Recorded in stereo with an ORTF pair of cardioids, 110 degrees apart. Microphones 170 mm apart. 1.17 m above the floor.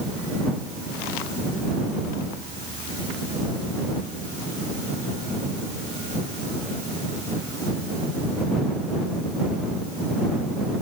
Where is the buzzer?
I don't hear a buzzer.